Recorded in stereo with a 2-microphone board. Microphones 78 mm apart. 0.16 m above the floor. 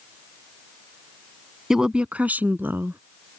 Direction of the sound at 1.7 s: 5° right (ahead or behind).